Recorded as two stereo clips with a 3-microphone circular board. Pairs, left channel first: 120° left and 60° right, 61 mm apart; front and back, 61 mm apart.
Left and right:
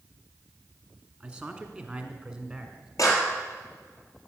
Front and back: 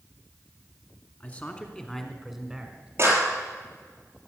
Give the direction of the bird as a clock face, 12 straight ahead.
I don't hear a bird.